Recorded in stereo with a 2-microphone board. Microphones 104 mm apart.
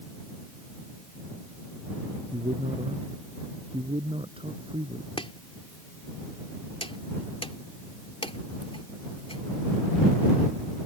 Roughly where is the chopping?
Left.